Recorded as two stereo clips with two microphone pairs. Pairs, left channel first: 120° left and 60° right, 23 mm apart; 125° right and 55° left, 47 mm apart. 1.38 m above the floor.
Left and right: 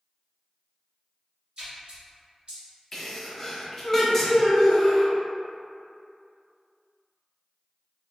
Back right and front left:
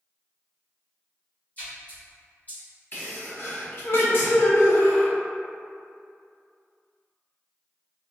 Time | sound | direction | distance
1.6 | a splash | 85° right | 1.4 m
2.9 | a sneeze | 160° right | 0.9 m